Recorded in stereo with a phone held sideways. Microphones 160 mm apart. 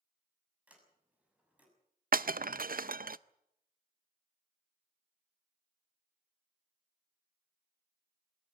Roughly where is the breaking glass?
Right.